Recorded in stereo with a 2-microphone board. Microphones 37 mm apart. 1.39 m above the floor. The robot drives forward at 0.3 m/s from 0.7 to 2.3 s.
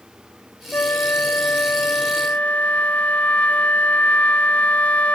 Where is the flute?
75° left (ahead or behind), 0.6 m; by 5.2 s 40° left (ahead or behind), 0.8 m.